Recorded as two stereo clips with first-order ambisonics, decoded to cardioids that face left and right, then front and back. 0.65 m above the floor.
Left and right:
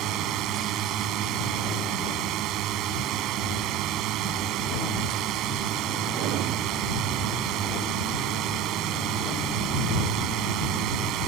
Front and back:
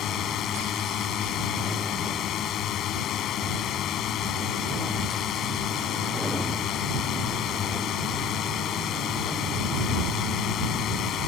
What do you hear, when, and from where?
0.0 s a drone: 50° right